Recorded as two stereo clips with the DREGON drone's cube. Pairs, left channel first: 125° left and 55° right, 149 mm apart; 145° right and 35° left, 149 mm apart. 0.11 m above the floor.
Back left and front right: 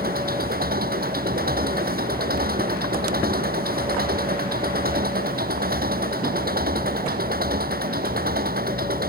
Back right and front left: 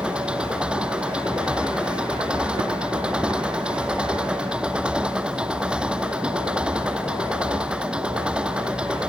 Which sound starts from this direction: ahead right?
An engine running, at 0.0 s.